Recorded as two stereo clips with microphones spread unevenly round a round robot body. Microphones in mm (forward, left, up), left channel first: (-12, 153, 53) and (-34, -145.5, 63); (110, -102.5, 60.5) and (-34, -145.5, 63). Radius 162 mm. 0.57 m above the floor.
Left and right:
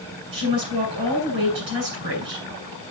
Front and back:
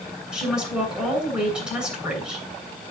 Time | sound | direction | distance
0.3 | a woman speaking | 80° right | 7.5 m